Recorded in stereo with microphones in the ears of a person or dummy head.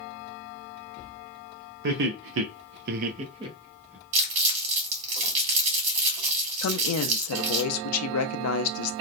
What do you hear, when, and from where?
1.8 s laughter: 60° right (ahead or behind), 0.7 m; by 4.0 s 10° right (ahead or behind), 0.9 m
4.1 s crumpling: 35° right (ahead or behind), 1.5 m
6.6 s a woman speaking: 80° left, 0.5 m